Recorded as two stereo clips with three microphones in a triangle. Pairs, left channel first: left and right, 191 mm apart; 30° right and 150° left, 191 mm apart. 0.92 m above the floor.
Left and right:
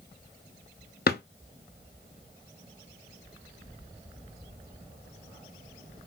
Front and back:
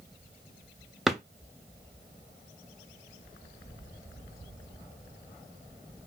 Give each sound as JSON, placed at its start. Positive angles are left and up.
{"t": 1.1, "sound": "a drawer", "azimuth_deg": 60, "distance_m": 0.6}